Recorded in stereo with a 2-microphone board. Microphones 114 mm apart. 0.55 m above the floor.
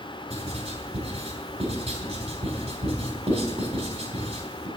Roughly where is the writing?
Right.